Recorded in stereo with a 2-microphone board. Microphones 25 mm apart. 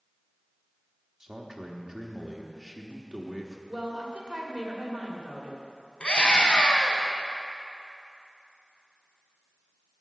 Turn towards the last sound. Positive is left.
turn(degrees=45)  # may be behind; listen again after turning